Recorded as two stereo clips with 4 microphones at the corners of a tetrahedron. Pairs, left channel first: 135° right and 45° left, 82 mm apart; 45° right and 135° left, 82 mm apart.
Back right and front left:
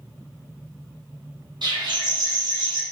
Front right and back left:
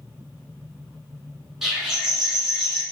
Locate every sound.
1.6 s a bird: 50° left, 1.4 m